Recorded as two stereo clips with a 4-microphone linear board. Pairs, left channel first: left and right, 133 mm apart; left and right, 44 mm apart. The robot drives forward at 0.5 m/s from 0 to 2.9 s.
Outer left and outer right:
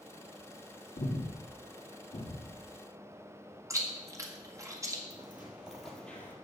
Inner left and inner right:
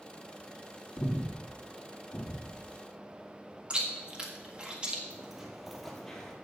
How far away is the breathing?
About 1.5 m.